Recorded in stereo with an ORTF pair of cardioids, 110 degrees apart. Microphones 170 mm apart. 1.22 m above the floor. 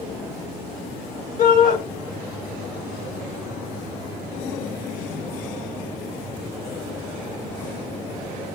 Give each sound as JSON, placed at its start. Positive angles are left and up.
{"t": 1.4, "sound": "a shout", "azimuth_deg": 55, "distance_m": 1.6}